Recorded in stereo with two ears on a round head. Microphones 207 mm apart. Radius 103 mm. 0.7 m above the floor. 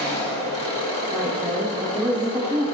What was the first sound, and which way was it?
An engine running, 25° left (ahead or behind).